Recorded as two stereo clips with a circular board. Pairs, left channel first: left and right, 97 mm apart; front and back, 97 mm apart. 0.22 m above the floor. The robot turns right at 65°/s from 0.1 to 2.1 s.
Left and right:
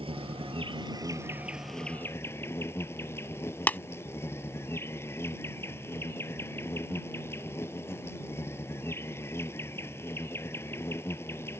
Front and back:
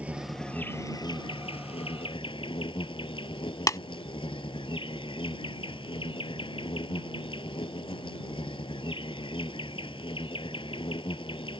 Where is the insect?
105° right; by 11.6 s 25° left.